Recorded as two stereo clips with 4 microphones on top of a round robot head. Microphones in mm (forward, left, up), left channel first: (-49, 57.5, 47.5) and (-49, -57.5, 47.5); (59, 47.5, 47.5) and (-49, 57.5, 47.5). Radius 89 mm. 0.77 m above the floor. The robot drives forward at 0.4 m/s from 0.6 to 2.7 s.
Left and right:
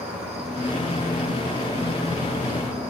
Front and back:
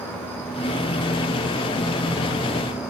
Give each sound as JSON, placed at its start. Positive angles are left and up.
{"t": 0.0, "sound": "an insect", "azimuth_deg": -75, "distance_m": 2.5}